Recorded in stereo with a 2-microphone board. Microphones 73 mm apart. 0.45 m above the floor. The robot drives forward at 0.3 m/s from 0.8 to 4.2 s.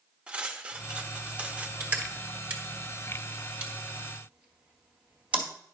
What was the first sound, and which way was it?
Cutlery clinking, 15° right (ahead or behind).